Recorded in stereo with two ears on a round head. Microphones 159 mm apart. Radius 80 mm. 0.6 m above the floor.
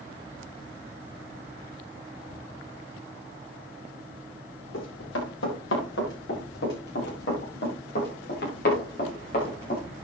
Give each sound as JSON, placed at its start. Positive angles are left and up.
{"t": 4.7, "sound": "running footsteps", "side_deg": 75, "distance_m": 7.5}